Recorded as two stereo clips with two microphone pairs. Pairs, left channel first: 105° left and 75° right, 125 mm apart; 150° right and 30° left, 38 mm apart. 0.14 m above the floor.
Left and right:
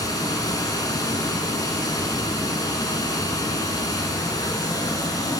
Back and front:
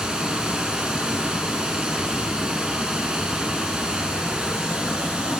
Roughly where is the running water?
Left.